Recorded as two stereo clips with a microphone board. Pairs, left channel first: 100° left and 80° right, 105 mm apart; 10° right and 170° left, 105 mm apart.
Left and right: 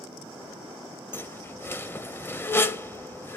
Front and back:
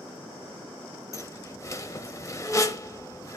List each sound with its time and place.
1.1 s a squeak: 35° left, 0.6 m